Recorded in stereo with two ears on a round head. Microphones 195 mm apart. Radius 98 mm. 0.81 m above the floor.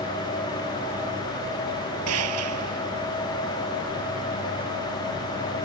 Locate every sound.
2.1 s a gunshot: 80° right